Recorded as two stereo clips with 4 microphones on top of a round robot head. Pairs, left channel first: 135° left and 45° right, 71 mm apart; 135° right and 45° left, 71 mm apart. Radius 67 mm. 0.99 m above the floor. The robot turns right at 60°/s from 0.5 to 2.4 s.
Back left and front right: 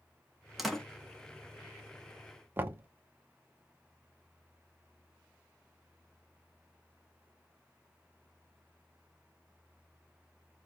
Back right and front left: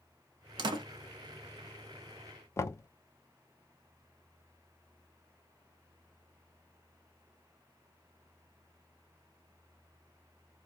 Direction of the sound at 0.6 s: 45° left.